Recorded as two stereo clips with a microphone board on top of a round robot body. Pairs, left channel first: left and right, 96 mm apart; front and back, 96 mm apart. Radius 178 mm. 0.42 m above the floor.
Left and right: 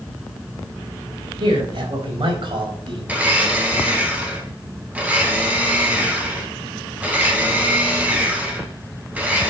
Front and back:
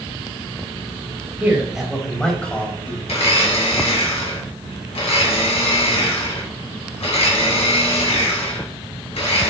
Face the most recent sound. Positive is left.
turn(degrees=-15)